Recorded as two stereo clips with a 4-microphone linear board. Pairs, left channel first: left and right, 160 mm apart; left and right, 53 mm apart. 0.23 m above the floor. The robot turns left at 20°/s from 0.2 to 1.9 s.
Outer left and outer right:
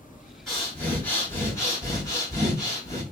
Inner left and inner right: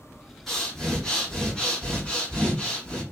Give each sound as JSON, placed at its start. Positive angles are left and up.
{"t": 0.5, "sound": "breathing", "side_deg": 5, "distance_m": 1.8}